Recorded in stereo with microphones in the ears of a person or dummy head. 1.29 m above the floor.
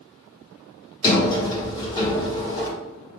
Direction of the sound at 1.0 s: 20° left (ahead or behind).